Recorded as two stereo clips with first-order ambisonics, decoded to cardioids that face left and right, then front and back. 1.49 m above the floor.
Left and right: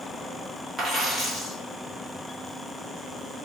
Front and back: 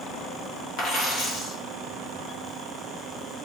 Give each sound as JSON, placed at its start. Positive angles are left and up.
{"t": 0.8, "sound": "a dropped coin", "azimuth_deg": -35, "distance_m": 1.1}